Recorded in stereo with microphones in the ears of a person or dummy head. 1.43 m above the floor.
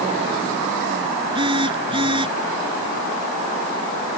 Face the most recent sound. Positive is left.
turn(degrees=-20)  # may be behind; listen again after turning